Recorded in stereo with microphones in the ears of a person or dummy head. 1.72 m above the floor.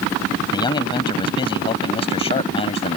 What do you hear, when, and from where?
0.5 s a man speaking: 30° left (ahead or behind); by 3.0 s 35° left (ahead or behind)